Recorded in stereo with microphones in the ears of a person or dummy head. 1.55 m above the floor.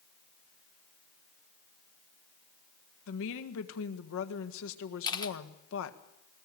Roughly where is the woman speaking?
Left.